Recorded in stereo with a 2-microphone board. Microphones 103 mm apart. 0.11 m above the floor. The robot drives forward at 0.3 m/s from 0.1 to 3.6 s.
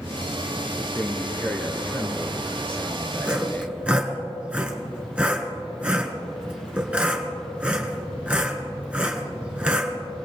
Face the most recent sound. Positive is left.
turn(degrees=-10)  # may be behind; listen again after turning